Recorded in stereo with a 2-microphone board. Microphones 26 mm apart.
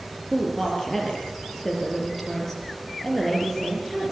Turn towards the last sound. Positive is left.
turn(degrees=10)  # may be behind; listen again after turning